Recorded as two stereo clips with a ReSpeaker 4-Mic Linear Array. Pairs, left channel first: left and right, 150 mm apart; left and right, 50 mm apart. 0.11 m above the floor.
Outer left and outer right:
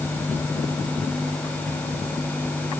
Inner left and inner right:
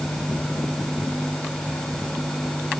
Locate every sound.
Only background noise.